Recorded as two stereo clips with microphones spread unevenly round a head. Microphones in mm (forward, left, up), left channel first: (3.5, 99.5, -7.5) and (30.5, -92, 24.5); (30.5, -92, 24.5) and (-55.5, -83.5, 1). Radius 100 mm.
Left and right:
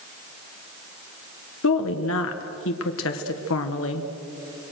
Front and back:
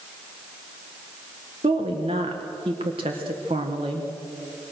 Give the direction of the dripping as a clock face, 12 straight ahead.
I don't hear dripping.